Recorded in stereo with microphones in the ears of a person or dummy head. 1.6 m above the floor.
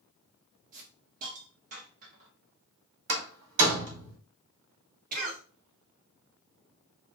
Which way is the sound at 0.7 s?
45° right (ahead or behind).